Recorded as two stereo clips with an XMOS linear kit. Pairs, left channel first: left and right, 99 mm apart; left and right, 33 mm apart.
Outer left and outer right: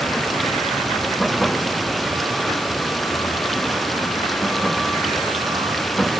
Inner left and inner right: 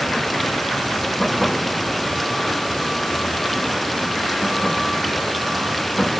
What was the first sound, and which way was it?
Running water, centre (ahead or behind).